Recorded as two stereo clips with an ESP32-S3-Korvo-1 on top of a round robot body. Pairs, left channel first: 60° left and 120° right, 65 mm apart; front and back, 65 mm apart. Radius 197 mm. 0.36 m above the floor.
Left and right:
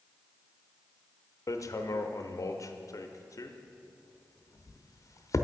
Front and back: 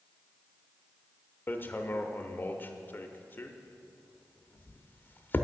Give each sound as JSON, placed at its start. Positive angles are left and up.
{"t": 1.5, "sound": "hammering", "azimuth_deg": 50, "distance_m": 0.9}